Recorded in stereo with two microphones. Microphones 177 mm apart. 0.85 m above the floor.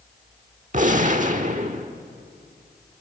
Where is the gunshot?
45° right (ahead or behind), 1.2 m.